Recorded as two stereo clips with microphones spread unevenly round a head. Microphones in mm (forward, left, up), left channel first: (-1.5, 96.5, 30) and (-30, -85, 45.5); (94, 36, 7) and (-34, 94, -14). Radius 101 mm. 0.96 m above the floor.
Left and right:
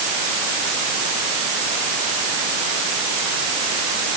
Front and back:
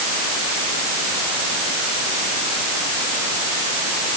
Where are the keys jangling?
No keys jangling in this recording.